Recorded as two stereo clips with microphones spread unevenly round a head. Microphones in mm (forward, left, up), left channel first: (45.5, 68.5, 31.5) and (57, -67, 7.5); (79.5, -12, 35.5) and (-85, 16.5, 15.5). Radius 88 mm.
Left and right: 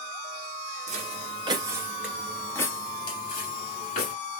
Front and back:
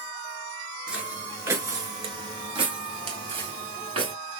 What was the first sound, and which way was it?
Footsteps, 100° right.